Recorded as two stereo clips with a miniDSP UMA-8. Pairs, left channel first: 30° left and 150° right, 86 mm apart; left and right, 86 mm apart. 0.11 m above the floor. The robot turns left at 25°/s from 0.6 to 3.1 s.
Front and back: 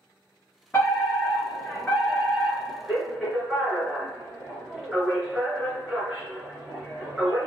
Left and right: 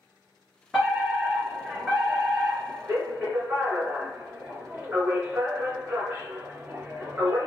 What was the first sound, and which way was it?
A fire alarm, 10° right.